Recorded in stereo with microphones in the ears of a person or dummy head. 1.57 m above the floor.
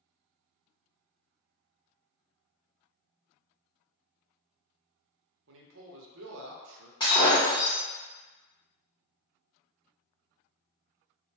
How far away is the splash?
I don't hear a splash.